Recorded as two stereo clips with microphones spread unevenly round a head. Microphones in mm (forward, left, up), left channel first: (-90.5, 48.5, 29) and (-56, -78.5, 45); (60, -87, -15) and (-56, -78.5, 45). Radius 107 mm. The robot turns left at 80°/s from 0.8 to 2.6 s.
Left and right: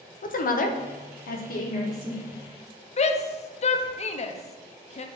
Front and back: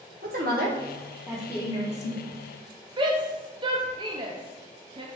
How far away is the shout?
About 0.7 m.